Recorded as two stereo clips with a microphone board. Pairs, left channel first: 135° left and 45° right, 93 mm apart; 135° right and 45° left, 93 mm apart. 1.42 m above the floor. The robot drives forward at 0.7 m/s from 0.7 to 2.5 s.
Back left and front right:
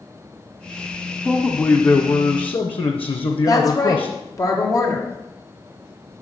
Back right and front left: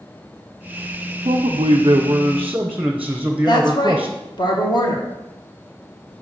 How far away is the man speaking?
About 0.8 m.